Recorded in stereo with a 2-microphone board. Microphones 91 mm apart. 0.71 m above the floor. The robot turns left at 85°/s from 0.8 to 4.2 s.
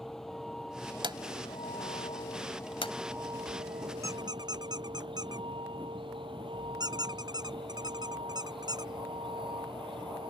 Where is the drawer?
60° right (ahead or behind); by 2.9 s 80° left.